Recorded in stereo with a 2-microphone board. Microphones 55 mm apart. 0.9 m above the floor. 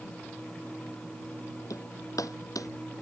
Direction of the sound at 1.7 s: 90° left.